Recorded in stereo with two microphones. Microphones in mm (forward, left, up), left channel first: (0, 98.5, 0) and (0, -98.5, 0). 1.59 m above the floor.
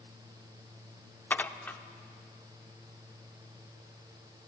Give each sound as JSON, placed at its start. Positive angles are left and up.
{"t": 1.3, "sound": "dishes clattering", "side_deg": 10, "distance_m": 0.5}